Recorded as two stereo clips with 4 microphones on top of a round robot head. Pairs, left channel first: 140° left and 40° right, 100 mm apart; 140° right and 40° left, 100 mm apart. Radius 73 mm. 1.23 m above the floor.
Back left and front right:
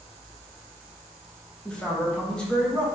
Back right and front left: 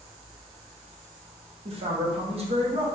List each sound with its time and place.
1.6 s a man speaking: 60° left, 0.9 m